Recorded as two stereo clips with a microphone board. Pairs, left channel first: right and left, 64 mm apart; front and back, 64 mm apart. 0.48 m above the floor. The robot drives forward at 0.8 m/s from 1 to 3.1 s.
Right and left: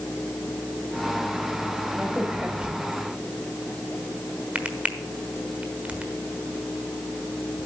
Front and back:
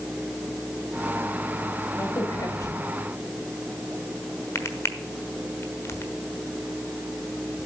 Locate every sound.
2.0 s a crack: 15° left, 2.0 m; by 6.1 s 25° left, 1.2 m